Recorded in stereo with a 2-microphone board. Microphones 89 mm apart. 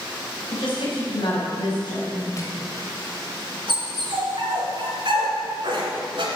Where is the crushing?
35° left (ahead or behind), 1.6 m.